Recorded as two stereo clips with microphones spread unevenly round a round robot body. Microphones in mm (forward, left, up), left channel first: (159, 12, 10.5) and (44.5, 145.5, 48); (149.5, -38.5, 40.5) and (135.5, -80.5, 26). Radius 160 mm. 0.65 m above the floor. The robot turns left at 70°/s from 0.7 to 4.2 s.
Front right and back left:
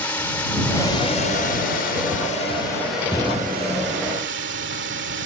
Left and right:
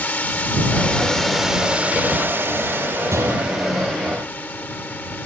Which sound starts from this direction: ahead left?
A drone, at 0.0 s.